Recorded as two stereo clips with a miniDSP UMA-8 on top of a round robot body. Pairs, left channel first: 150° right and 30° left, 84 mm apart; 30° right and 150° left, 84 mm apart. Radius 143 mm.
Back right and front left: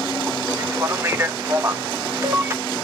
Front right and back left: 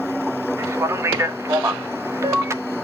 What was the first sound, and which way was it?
A man speaking, 90° left.